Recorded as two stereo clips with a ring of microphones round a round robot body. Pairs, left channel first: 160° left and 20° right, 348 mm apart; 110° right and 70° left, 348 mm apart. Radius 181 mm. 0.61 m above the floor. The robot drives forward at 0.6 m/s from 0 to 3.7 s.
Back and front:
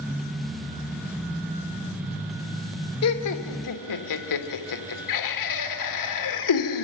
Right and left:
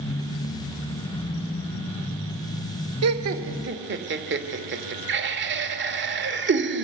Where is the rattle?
I don't hear a rattle.